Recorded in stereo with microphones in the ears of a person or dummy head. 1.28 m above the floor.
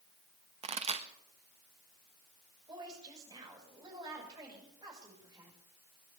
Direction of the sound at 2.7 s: 25° right (ahead or behind).